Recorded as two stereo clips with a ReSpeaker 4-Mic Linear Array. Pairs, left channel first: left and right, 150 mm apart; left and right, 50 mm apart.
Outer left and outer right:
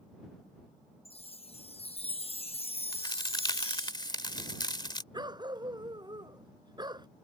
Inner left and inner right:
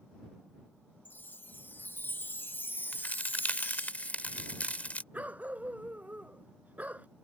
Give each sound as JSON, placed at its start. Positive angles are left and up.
{"t": 1.1, "sound": "a chime", "side_deg": 40}
{"t": 2.9, "sound": "a crack", "side_deg": 30}
{"t": 5.1, "sound": "a dog barking", "side_deg": -30}